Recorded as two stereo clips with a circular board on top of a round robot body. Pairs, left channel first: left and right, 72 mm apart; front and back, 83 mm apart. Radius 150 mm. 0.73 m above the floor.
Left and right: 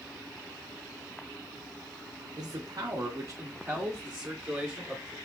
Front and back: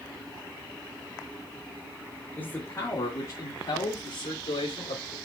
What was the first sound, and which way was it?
A man speaking, 65° right.